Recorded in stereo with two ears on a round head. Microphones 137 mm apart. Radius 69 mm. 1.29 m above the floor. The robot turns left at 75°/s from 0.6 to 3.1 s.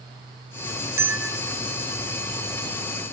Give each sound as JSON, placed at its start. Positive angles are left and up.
{"t": 1.0, "sound": "a bell", "azimuth_deg": -155, "distance_m": 0.5}